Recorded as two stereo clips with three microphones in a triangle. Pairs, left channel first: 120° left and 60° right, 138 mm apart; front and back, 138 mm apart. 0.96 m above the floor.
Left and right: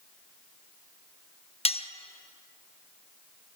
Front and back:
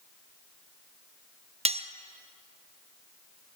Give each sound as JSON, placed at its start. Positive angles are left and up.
{"t": 1.6, "sound": "cutlery clinking", "azimuth_deg": 155, "distance_m": 0.5}